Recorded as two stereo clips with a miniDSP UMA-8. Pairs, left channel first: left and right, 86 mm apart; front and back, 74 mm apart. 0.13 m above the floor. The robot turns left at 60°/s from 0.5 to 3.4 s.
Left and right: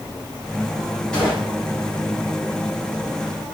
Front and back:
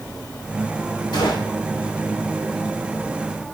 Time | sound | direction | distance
1.1 | a gunshot | 10° left | 6.5 m